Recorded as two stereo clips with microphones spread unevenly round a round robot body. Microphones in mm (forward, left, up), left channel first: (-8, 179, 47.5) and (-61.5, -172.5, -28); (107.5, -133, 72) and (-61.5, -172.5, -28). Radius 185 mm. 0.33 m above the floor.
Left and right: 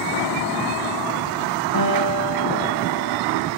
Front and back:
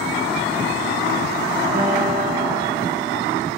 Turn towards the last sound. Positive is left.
turn(degrees=115)